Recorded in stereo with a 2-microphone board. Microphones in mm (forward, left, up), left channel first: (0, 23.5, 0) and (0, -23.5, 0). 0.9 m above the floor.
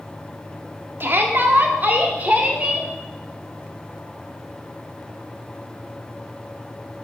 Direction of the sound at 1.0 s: 50° right (ahead or behind).